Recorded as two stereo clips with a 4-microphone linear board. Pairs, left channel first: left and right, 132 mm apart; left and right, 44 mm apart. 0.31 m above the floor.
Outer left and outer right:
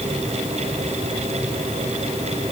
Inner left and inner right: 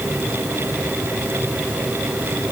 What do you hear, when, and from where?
Only background noise.